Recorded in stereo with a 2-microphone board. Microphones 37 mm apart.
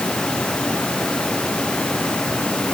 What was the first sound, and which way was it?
Only background noise.